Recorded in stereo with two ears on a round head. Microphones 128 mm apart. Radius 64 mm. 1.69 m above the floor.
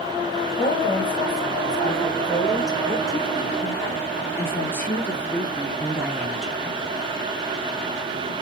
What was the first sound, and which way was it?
A woman speaking, 35° left (ahead or behind).